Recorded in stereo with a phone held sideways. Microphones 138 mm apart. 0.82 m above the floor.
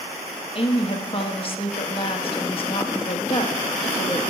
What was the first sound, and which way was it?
A woman speaking, 40° left (ahead or behind).